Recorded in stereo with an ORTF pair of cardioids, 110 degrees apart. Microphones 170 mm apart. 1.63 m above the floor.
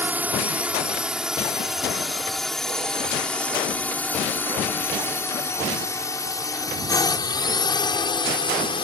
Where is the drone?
10° right; by 8.8 s 30° left.